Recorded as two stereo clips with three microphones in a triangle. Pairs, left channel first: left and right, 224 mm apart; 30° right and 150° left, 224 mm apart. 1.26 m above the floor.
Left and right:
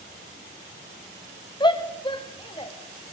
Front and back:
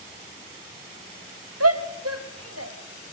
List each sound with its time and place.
1.6 s a shout: 160° left, 1.7 m